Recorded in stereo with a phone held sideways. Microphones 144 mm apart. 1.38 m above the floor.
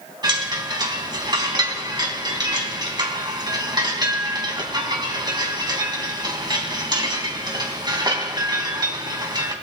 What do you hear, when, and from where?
0.2 s a chime: 30° right (ahead or behind), 3 m